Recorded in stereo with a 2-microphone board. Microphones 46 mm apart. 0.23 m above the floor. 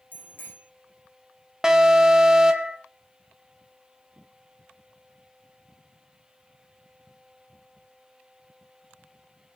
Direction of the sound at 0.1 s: 45° left (ahead or behind).